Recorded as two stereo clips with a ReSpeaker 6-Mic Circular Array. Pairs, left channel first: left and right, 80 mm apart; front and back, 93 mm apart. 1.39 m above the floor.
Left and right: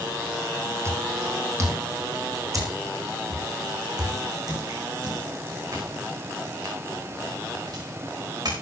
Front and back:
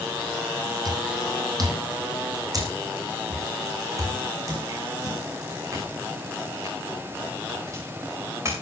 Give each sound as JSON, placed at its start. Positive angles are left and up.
{"t": 0.8, "sound": "footsteps", "azimuth_deg": -140, "distance_m": 3.0}